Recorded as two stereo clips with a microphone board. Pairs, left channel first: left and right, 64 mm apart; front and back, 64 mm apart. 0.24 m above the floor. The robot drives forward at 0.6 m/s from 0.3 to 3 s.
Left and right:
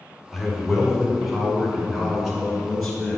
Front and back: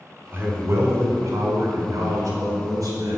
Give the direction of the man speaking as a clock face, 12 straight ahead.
6 o'clock.